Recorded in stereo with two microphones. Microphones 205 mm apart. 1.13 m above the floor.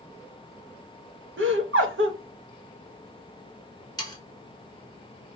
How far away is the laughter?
About 1.1 m.